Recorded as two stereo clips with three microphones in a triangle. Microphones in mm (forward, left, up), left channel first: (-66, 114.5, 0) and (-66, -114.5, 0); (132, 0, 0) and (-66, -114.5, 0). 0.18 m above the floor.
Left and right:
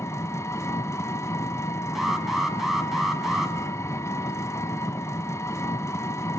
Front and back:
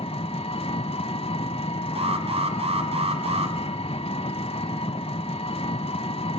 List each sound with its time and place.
0.0 s an engine running: 30° left, 0.8 m
1.9 s an alarm: 175° right, 1.9 m